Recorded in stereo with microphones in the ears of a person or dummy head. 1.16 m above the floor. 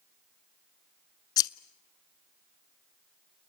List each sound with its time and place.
1.4 s scissors: 25° left (ahead or behind), 0.8 m